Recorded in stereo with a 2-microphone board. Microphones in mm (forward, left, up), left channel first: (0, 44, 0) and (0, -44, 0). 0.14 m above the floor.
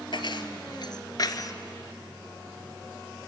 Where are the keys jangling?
65° left (ahead or behind), 1.7 m; by 1.5 s 45° left (ahead or behind), 1.2 m.